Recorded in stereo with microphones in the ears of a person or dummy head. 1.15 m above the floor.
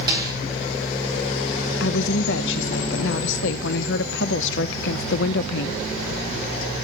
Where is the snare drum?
25° right (ahead or behind), 3.5 m.